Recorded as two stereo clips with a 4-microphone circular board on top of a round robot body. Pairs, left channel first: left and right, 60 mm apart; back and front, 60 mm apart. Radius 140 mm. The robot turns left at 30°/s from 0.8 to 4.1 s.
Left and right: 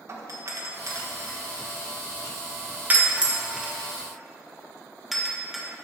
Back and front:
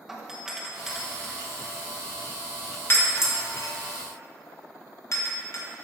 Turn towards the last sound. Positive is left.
turn(degrees=180)